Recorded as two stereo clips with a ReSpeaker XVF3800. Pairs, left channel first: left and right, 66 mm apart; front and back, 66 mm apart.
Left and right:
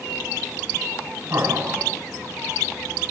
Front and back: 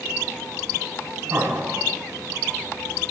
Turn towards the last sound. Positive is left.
turn(degrees=-120)